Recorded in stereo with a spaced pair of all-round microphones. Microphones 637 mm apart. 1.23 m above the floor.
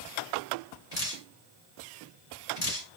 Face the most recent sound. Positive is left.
turn(degrees=75)  # may be behind; listen again after turning